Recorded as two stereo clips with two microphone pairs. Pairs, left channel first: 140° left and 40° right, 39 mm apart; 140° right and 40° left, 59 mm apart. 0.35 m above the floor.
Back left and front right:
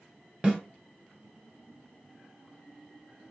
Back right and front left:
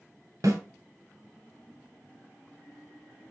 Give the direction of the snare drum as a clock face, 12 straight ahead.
11 o'clock.